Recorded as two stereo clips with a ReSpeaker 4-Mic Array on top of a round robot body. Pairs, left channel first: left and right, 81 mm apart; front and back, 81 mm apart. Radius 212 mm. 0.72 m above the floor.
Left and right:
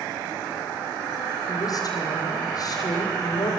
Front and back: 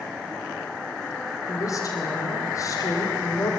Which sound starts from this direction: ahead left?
A woman speaking, at 1.5 s.